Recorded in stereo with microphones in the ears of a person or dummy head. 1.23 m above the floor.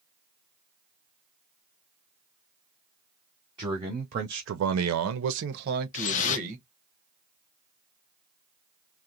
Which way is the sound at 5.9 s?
35° left (ahead or behind).